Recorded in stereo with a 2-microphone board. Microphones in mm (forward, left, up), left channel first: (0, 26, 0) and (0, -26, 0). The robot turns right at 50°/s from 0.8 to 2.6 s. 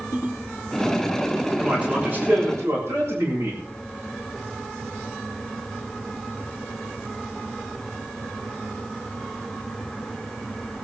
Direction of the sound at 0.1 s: 75° left (ahead or behind).